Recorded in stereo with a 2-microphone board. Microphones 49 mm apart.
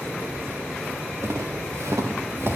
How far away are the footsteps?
About 2.5 m.